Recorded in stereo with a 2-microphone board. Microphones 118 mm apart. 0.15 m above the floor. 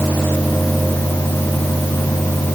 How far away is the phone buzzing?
I don't hear a phone buzzing.